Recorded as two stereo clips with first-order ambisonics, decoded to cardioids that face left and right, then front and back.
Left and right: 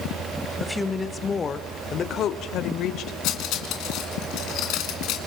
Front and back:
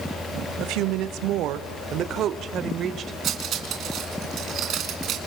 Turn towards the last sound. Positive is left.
turn(degrees=125)